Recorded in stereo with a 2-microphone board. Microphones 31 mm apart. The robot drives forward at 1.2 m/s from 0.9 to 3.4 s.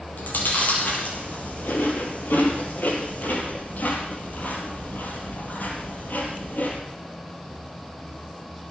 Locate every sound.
0.2 s chewing: 65° left (ahead or behind), 5 m; by 6.8 s 70° left (ahead or behind), 4.5 m